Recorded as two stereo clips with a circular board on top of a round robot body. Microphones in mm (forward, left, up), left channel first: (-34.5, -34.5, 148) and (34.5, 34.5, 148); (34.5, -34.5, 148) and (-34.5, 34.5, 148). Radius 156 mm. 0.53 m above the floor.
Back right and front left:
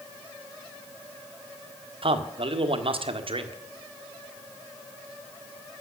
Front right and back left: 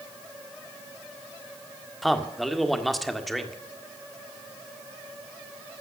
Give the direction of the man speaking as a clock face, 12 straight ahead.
11 o'clock.